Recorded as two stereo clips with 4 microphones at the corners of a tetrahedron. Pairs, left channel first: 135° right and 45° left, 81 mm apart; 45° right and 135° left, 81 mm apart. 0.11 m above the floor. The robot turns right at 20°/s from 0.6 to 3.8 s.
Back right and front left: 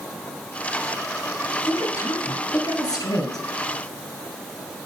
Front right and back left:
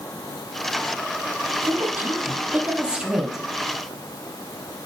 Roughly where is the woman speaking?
Behind.